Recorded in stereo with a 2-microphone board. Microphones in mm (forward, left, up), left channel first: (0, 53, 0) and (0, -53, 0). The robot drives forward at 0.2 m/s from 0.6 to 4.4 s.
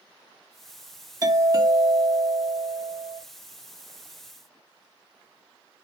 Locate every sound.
1.2 s a doorbell: 35° right (ahead or behind), 1.8 m; by 3.2 s 40° right (ahead or behind), 1.7 m